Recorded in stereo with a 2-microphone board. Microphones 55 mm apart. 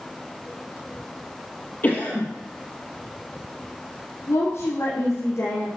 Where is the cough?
30° left (ahead or behind), 3.5 m.